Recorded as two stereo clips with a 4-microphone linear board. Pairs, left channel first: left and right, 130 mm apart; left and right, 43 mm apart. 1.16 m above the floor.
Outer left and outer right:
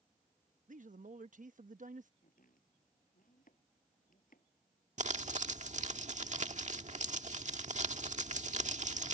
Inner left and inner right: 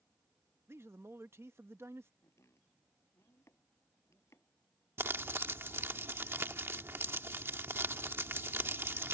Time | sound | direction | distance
0.7 | a man speaking | 70° right (ahead or behind) | ?
2.2 | chopping | 80° left | ?
5.0 | crumpling | 60° right (ahead or behind) | ?